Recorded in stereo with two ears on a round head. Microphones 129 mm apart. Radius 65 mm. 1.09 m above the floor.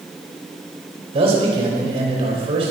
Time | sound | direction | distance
1.1 | a man speaking | 45° right (ahead or behind) | 5 m